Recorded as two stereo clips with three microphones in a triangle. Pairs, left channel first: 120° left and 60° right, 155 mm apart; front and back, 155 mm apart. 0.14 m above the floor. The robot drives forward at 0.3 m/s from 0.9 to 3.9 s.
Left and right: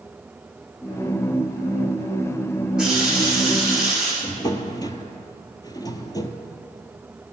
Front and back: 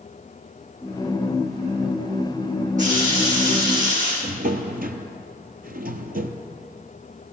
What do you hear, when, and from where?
2.8 s a running tap: 145° right, 5.5 m
4.2 s a drawer: 175° right, 0.9 m